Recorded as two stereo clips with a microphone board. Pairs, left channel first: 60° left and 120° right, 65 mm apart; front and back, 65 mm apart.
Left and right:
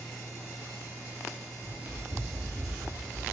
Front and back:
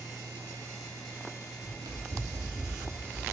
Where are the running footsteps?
175° right, 2.5 m; by 3.2 s 150° left, 2.5 m.